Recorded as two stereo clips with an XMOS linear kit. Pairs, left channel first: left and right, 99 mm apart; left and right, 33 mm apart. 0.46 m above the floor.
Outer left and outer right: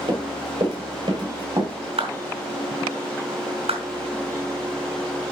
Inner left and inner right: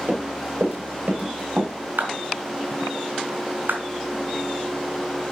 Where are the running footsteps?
50° right (ahead or behind), 7 m.